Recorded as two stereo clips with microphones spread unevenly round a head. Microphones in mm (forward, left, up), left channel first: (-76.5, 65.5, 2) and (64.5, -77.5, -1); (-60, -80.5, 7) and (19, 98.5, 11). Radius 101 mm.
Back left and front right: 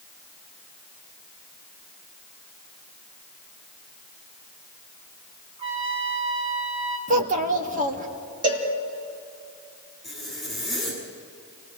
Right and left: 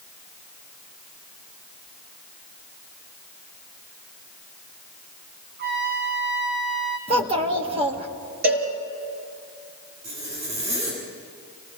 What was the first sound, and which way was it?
A trumpet, 20° left.